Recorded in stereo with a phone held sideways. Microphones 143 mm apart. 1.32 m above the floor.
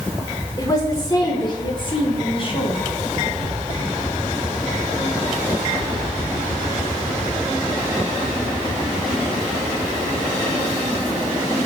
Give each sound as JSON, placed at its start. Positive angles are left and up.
{"t": 0.6, "sound": "a woman speaking", "side_deg": 25, "distance_m": 5.0}